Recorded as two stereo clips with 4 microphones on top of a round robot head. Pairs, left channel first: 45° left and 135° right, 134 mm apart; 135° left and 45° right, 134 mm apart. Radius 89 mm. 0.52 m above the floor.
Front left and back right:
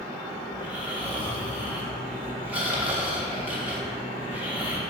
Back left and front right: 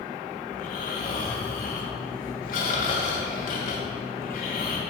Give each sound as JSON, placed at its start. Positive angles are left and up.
{"t": 0.5, "sound": "snoring", "azimuth_deg": 145, "distance_m": 2.5}